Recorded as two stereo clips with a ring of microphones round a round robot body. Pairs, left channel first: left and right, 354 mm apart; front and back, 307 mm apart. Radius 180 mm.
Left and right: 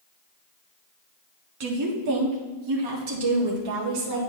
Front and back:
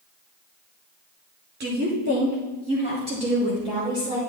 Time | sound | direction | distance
1.6 | a woman speaking | 125° right | 1.8 m